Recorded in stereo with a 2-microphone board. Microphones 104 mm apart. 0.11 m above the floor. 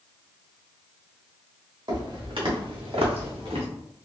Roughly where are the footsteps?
Right.